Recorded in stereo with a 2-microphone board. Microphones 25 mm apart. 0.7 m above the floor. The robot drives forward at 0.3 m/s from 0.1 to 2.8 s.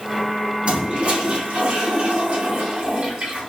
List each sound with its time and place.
0.7 s a toilet flushing: 55° right (ahead or behind), 2.0 m